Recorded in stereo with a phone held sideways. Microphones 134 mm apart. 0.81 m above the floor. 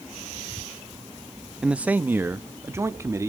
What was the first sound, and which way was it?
A man speaking, 5° right (ahead or behind).